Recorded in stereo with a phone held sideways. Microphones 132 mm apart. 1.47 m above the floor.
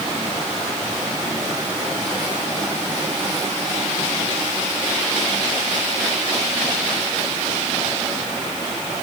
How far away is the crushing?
I don't hear crushing.